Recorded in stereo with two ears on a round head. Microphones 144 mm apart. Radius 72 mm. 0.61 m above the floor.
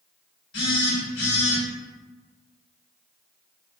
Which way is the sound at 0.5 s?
85° left.